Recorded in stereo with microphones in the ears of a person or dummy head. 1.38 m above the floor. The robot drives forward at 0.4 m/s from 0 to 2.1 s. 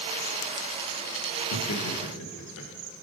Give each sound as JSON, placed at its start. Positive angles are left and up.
{"t": 1.5, "sound": "laughter", "side_deg": 75, "distance_m": 1.1}